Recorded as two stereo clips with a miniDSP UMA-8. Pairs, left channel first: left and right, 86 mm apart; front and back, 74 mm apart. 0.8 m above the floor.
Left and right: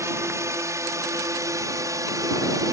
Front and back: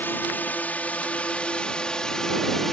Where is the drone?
50° right; by 2.7 s 85° right.